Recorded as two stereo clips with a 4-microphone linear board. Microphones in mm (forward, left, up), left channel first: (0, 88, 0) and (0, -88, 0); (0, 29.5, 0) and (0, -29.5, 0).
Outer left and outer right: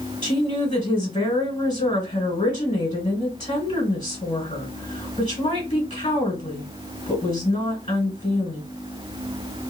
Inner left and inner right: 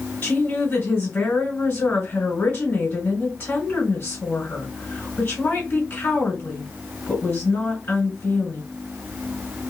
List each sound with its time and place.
0.2 s a woman speaking: 30° left (ahead or behind), 1.6 m